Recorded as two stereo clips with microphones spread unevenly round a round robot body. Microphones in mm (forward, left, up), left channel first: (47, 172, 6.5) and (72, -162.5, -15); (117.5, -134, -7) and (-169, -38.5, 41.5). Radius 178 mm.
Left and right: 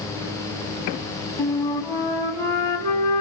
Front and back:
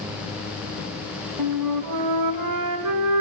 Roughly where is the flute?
Behind.